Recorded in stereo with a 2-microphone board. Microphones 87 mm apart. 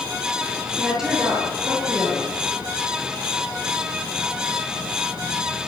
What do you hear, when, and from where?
0.7 s a woman speaking: 5° right (ahead or behind), 9.5 m